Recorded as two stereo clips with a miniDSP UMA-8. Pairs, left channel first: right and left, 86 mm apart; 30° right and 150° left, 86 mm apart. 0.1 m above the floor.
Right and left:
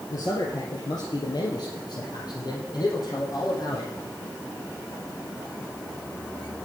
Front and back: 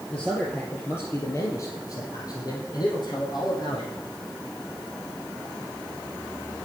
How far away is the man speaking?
About 2.5 m.